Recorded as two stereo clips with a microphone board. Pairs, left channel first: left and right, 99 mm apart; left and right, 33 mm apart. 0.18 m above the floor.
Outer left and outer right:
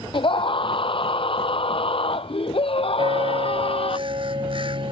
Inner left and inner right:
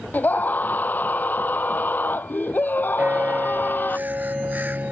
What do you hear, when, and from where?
0.1 s a scream: 60° left (ahead or behind); by 4.0 s 75° left (ahead or behind)
3.0 s a bell: 65° right (ahead or behind)